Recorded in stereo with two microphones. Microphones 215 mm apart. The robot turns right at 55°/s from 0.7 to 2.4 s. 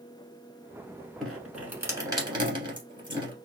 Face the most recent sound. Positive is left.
turn(degrees=-20)  # may be behind; listen again after turning